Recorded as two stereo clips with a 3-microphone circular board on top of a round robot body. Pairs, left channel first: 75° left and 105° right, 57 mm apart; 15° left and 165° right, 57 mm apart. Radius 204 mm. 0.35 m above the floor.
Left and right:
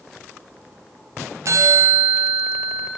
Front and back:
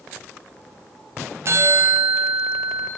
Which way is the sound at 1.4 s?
130° right.